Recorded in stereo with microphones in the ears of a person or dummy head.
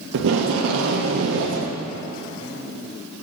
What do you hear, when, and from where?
0.1 s tape being pulled: 60° right (ahead or behind), 0.6 m